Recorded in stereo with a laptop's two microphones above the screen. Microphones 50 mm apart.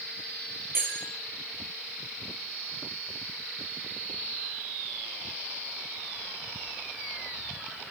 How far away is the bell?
About 6 m.